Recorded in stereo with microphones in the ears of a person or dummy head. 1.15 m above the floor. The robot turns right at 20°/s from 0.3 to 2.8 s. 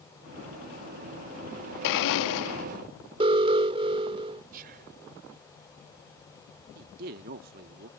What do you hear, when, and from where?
1.8 s a blender: 65° left (ahead or behind); by 2.7 s 60° left (ahead or behind)
3.2 s an alarm: 25° right (ahead or behind)
4.5 s whispering: 45° right (ahead or behind)
6.8 s a man speaking: 50° right (ahead or behind)